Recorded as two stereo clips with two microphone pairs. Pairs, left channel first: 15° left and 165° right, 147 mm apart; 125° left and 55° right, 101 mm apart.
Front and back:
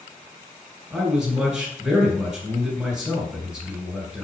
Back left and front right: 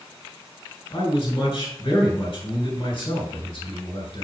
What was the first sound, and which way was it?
A man speaking, 110° left.